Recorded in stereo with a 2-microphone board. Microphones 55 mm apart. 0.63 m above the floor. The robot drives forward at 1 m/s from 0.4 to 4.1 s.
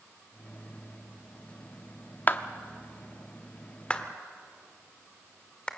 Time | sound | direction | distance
2.3 | a clap | 35° left (ahead or behind) | 0.8 m